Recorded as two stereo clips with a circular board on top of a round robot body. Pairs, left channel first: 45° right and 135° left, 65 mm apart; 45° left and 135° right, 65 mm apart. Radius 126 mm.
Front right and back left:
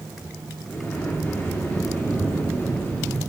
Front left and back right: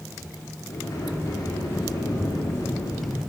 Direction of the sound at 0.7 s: 15° left.